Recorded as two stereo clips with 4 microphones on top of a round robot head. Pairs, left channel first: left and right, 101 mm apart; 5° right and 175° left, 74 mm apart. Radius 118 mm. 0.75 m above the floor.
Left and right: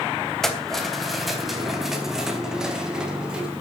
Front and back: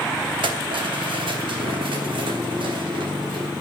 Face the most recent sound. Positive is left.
turn(degrees=-170)